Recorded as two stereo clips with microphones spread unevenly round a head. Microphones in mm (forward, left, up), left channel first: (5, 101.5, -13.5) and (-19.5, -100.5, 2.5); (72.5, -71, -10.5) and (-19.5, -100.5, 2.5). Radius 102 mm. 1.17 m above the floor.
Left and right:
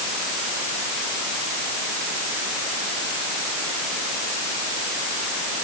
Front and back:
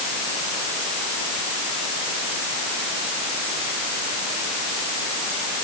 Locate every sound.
Only background noise.